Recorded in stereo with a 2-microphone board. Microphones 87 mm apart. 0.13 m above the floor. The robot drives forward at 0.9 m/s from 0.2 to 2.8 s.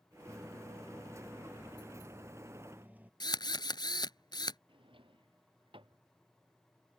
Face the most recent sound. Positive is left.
turn(degrees=-75)  # may be behind; listen again after turning